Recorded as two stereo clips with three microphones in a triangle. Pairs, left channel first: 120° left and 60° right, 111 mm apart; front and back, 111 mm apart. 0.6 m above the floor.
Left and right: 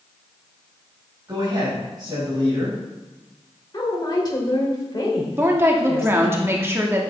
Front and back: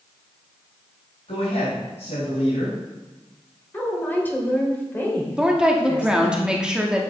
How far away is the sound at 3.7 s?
About 2.5 m.